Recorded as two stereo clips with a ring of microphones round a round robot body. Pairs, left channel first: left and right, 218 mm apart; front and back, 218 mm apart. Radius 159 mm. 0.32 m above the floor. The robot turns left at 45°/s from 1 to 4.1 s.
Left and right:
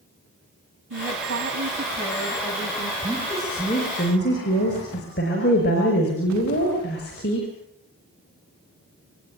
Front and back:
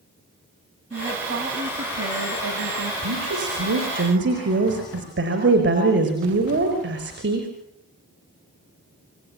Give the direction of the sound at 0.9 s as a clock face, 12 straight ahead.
4 o'clock.